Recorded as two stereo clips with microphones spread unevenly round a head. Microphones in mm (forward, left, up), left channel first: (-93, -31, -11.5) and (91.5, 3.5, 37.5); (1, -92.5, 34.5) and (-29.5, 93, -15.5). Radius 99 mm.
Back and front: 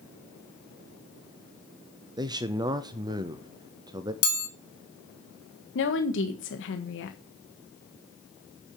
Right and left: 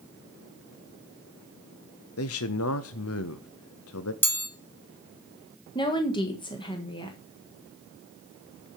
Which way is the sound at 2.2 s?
60° right.